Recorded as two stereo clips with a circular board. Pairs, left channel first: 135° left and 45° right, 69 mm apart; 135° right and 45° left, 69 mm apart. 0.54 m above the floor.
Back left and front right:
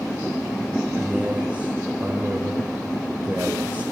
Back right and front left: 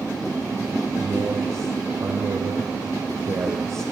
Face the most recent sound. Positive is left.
turn(degrees=15)